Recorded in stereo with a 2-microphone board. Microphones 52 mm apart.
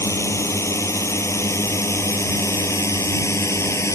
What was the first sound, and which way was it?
A drone, 70° left (ahead or behind).